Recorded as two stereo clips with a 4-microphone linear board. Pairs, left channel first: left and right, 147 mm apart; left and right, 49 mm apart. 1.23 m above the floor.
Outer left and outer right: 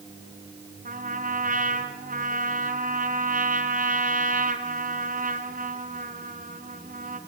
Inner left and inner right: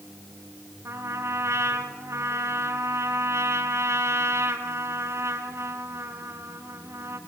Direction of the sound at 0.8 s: 70° right (ahead or behind).